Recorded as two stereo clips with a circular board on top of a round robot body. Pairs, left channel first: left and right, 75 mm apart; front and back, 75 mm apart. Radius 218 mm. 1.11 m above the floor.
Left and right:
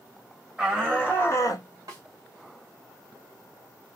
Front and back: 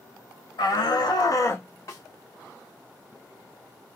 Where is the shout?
5° right, 1.8 m; by 1.7 s 70° left, 1.2 m.